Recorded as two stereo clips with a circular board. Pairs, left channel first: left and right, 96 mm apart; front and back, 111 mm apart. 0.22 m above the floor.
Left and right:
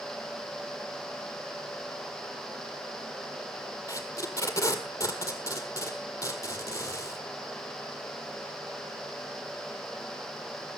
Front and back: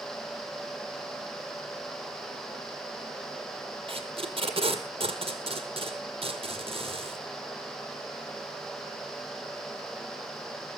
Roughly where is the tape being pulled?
Behind left.